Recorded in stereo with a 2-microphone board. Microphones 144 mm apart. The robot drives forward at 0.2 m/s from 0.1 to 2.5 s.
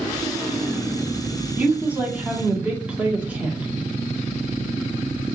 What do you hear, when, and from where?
1.6 s a woman speaking: 10° right (ahead or behind), 1.3 m